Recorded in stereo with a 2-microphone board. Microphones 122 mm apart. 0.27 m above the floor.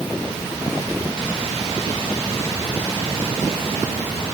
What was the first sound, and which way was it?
Only background noise.